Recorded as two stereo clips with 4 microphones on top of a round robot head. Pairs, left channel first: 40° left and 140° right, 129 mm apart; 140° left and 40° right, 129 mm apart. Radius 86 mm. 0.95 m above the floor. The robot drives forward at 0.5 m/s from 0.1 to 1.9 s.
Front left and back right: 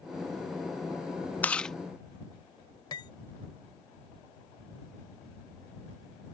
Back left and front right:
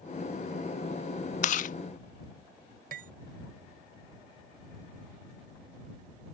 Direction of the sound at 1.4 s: 115° left.